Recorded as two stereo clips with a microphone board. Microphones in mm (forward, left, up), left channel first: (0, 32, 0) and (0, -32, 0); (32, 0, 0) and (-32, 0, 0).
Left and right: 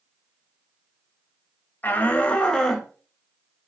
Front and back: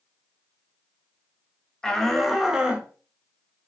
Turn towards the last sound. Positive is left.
turn(degrees=175)